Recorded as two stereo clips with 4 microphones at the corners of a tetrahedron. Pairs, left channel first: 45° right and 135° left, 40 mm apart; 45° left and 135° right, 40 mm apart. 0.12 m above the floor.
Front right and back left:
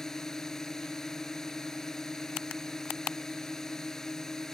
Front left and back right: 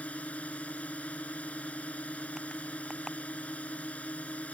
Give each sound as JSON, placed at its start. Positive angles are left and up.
{"t": 0.0, "sound": "a drone", "azimuth_deg": 25}